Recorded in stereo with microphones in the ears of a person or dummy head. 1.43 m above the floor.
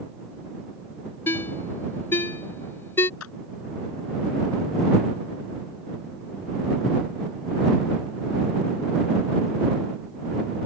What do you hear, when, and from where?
1.3 s a ringtone: 20° left (ahead or behind)
3.2 s a clap: 85° left